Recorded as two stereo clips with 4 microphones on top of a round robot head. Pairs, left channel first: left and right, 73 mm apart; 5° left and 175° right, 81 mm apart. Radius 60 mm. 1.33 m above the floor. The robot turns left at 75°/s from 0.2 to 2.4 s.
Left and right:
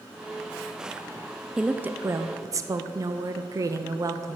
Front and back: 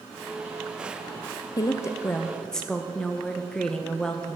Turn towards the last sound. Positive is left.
turn(degrees=-75)